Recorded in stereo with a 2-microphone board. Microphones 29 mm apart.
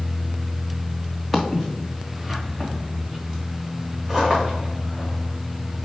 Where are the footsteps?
Centre (ahead or behind), 1.5 m; by 5.9 s 20° right (ahead or behind), 5.5 m.